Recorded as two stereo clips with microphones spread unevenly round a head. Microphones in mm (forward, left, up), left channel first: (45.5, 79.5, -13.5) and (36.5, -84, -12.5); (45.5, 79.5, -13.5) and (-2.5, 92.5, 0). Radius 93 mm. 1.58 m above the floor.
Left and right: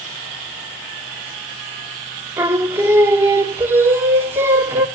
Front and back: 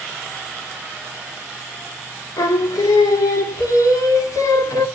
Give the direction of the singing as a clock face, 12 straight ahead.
1 o'clock.